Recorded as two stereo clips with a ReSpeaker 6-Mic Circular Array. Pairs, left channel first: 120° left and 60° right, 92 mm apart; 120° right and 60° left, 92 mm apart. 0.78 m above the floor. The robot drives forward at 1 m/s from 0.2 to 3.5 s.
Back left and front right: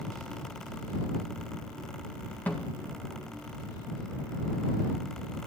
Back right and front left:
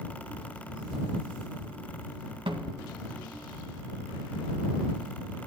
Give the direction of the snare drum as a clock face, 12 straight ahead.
10 o'clock.